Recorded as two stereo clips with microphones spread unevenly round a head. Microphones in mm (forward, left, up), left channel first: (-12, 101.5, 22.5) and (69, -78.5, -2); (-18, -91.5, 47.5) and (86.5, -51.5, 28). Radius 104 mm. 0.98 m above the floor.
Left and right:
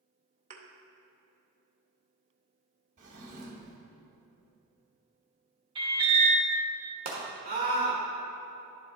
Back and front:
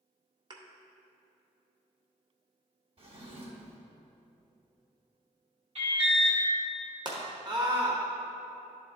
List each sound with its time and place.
0.5 s a thud: 25° right, 0.8 m
3.0 s a drawer: 15° right, 1.4 m
5.8 s an alarm: straight ahead, 1.9 m
7.0 s a scream: 25° right, 1.3 m